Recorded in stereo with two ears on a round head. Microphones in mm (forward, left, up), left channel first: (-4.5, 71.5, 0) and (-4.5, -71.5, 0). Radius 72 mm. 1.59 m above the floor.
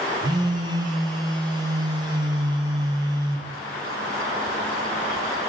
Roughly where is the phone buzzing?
Right.